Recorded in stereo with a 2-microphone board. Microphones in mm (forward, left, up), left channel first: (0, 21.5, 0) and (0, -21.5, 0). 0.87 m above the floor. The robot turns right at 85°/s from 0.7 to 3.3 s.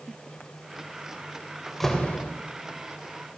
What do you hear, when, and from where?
1.7 s a door slam: 10° right, 3 m; by 2.3 s 45° left, 3 m